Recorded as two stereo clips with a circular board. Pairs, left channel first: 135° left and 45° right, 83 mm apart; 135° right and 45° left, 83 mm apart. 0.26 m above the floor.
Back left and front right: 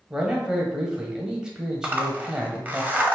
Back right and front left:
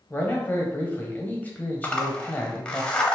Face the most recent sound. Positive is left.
turn(degrees=-80)